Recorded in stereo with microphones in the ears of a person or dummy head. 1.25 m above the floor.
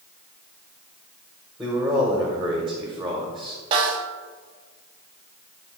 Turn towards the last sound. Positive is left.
turn(degrees=-30)  # may be behind; listen again after turning